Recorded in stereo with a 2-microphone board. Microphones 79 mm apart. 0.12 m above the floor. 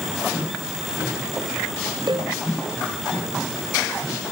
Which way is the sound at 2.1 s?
65° right (ahead or behind).